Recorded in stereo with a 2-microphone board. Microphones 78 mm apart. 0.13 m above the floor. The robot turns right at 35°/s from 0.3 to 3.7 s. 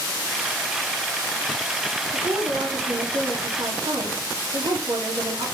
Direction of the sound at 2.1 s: 130° right.